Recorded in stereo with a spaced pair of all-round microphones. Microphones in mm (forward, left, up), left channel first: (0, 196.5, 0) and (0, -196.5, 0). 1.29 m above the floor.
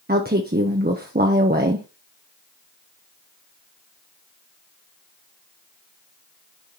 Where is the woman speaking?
25° right (ahead or behind), 0.9 m.